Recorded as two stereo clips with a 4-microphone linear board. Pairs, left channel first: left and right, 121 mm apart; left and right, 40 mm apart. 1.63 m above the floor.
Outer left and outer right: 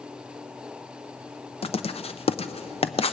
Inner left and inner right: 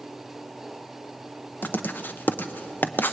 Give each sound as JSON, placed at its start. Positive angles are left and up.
{"t": 1.6, "sound": "writing", "side_deg": 55, "distance_m": 0.7}